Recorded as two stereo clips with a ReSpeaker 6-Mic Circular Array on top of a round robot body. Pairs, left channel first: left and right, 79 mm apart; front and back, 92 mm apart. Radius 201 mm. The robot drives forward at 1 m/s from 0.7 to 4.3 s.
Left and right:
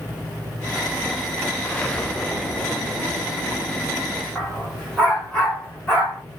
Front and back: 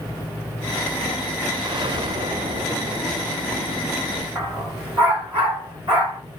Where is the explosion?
160° left, 1.4 m; by 4.2 s 175° left, 4 m.